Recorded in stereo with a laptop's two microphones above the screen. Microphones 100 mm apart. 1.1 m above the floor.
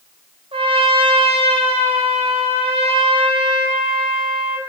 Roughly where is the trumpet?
Right.